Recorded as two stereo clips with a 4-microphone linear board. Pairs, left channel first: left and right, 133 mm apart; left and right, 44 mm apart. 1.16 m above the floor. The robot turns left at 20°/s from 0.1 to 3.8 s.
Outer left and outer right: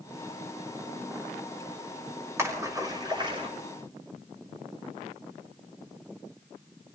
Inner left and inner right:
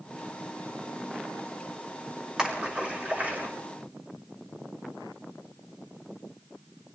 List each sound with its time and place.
2.4 s a splash: 20° right (ahead or behind), 6 m; by 3.5 s 40° right (ahead or behind), 6 m